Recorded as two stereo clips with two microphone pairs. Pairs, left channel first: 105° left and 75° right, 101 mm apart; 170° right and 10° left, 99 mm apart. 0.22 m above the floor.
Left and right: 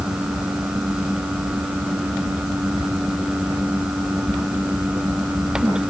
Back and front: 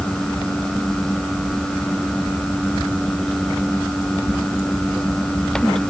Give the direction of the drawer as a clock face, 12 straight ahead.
I don't hear a drawer.